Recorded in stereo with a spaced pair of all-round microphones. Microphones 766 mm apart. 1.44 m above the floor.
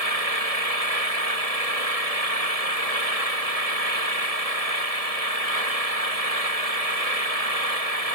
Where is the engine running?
50° right (ahead or behind).